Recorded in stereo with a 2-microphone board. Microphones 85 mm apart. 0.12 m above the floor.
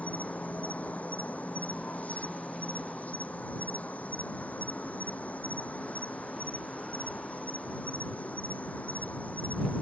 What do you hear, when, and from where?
0.0 s an insect: 15° left (ahead or behind)